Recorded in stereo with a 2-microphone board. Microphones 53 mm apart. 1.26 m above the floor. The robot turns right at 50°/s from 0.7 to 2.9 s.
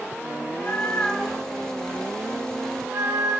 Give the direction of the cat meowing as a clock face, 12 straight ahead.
7 o'clock.